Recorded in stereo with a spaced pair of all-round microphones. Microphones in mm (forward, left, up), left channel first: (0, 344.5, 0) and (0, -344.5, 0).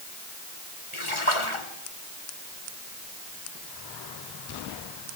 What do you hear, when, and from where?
0.9 s a splash: 45° left (ahead or behind), 2.5 m